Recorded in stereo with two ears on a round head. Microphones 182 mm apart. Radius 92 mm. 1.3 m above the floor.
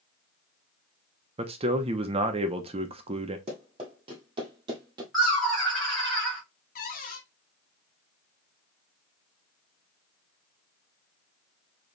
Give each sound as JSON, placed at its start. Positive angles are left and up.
{"t": 1.4, "sound": "a man speaking", "side_deg": -30, "distance_m": 0.9}
{"t": 3.5, "sound": "running footsteps", "side_deg": -30, "distance_m": 2.0}
{"t": 5.1, "sound": "laughter", "side_deg": 0, "distance_m": 1.4}
{"t": 6.8, "sound": "a cupboard door", "side_deg": 45, "distance_m": 1.2}